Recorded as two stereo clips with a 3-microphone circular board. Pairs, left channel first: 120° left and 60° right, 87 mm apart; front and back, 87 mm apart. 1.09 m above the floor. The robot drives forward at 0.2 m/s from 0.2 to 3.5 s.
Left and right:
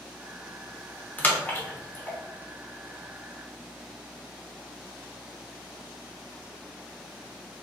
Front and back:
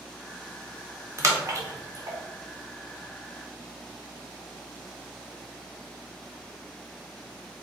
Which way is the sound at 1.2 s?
170° left.